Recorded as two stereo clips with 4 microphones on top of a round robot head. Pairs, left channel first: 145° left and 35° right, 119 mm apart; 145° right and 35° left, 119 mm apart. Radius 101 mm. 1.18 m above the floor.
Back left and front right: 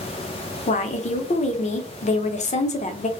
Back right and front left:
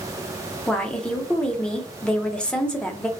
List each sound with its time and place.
0.7 s a woman speaking: 135° left, 0.6 m